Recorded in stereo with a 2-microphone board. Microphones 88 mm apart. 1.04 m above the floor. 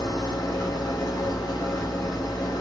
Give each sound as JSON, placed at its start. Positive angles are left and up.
{"t": 0.0, "sound": "an engine running", "side_deg": 50, "distance_m": 1.9}